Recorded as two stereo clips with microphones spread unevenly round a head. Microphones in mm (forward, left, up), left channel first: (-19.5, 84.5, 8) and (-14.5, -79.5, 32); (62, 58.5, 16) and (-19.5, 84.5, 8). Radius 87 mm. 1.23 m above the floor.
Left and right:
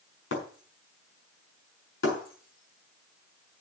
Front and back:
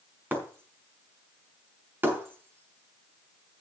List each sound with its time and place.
0.3 s breaking glass: 95° left, 5.5 m